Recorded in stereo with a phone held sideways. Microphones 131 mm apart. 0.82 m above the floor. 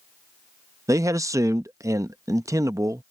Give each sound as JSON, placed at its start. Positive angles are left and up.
{"t": 0.9, "sound": "a man speaking", "side_deg": -25}